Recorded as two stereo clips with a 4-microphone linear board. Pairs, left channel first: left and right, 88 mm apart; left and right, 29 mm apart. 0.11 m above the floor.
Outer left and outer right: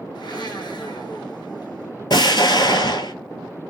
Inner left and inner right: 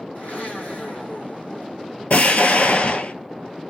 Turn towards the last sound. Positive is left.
turn(degrees=60)  # may be behind; listen again after turning